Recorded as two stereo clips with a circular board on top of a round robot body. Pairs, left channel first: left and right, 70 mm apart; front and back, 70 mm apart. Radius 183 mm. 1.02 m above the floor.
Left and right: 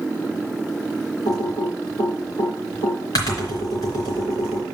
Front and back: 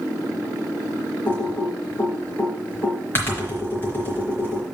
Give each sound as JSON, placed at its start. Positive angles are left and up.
{"t": 1.2, "sound": "typing on a keyboard", "azimuth_deg": 60, "distance_m": 1.3}